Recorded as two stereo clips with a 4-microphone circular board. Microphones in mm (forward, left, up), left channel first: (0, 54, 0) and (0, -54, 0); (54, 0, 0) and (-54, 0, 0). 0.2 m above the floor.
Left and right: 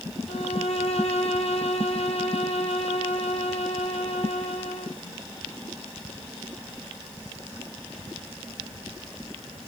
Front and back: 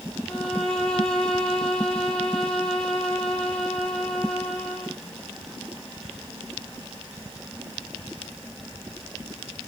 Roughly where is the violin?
Left.